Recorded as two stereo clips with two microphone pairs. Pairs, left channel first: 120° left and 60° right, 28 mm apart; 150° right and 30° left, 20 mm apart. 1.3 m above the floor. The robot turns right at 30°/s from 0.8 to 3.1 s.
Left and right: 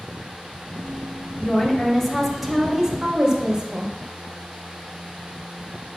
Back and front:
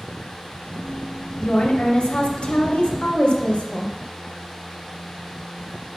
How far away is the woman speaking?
About 1.2 m.